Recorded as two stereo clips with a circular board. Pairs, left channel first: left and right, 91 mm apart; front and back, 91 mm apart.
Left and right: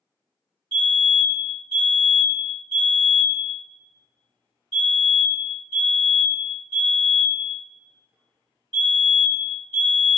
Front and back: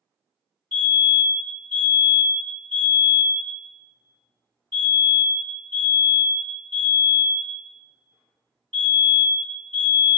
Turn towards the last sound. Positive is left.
turn(degrees=-75)